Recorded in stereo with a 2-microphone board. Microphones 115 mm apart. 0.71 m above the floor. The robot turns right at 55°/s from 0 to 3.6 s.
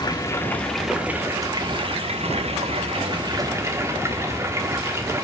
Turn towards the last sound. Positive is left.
turn(degrees=-25)